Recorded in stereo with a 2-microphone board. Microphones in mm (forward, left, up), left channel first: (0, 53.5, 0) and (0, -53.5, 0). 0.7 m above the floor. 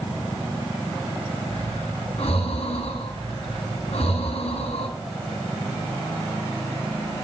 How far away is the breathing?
About 8 m.